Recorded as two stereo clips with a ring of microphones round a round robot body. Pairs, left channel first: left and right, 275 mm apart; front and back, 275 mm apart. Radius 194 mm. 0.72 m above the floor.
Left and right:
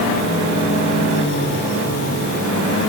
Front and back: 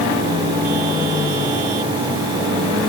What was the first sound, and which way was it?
Only background noise.